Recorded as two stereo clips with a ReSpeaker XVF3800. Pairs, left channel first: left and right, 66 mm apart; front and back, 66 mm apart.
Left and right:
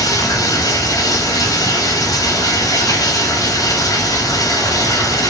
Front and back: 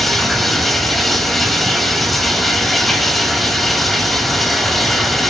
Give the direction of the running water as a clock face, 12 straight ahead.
9 o'clock.